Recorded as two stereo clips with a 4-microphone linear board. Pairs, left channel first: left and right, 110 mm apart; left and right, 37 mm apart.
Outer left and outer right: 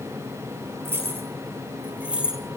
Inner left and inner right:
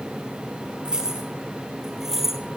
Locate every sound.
0.8 s keys jangling: 25° right (ahead or behind), 1.7 m; by 2.4 s 10° right (ahead or behind), 2.5 m